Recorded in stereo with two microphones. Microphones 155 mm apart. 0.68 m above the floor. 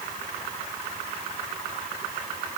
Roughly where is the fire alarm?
No fire alarm in this recording.